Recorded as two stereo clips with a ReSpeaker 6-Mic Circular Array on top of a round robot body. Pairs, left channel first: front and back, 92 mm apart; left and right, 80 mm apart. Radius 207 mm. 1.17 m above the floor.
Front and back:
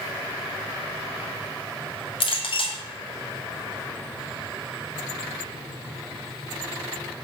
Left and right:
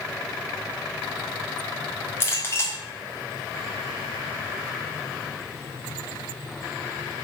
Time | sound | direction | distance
2.2 | a clink | 25° left | 1.5 m